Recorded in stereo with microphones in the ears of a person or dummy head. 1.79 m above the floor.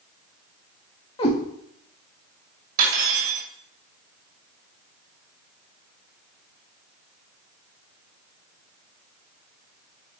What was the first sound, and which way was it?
A cat meowing, 30° left (ahead or behind).